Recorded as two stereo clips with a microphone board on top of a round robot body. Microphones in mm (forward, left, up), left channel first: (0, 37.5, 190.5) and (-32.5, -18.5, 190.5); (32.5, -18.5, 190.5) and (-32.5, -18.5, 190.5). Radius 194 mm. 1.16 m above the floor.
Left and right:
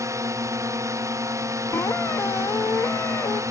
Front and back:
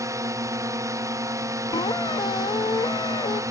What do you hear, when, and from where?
0.0 s a drone: 150° right
1.7 s a squeak: 5° left